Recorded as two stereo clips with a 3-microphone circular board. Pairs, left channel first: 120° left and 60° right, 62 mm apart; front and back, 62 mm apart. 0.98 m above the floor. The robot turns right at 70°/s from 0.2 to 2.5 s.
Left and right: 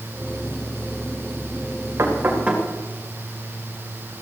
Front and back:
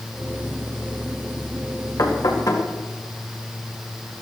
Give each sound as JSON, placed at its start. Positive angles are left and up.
{"t": 2.0, "sound": "knocking", "azimuth_deg": -20, "distance_m": 2.5}